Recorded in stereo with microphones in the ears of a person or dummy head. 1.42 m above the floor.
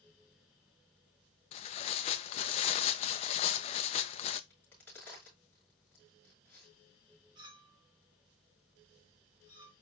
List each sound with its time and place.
1.5 s tearing paper: 35° left (ahead or behind), 0.6 m
4.5 s a crack: 10° left (ahead or behind), 5 m
7.3 s a clink: 20° right (ahead or behind), 0.7 m